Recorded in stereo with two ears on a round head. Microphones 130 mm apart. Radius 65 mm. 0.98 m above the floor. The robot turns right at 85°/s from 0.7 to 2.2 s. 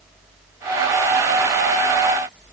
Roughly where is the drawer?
No drawer in this recording.